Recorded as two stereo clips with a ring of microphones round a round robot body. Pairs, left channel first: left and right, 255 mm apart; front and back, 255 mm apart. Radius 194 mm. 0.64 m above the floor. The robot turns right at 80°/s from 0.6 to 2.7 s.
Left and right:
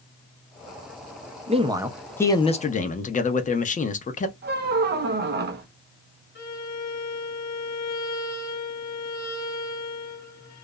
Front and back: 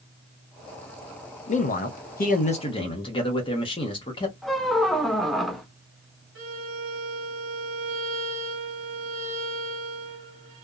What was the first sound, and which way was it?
A man speaking, 45° right.